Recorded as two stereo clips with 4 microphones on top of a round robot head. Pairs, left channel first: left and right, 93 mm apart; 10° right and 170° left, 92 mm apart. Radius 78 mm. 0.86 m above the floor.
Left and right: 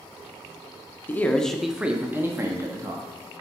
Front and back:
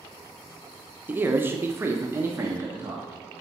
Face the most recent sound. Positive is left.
turn(degrees=-125)